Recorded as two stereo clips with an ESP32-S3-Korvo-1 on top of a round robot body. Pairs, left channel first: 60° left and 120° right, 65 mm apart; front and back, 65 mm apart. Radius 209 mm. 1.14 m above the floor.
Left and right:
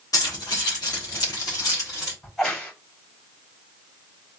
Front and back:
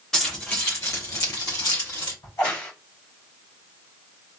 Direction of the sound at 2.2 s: 20° right.